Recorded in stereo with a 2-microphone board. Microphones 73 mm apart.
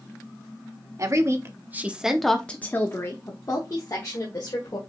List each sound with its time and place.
1.0 s a woman speaking: 45° right (ahead or behind), 1.0 m; by 4.8 s 55° left (ahead or behind), 1.8 m